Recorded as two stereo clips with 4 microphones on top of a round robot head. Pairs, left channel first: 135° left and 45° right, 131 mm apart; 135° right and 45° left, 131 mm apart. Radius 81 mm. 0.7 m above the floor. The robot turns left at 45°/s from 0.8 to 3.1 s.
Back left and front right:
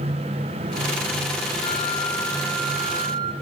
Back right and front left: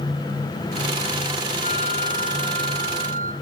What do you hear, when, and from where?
1.6 s a flute: 80° left, 5 m; by 3.3 s 15° left, 5 m